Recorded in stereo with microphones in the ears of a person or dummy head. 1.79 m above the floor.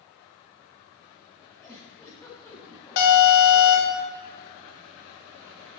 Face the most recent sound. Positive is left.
turn(degrees=70)  # may be behind; listen again after turning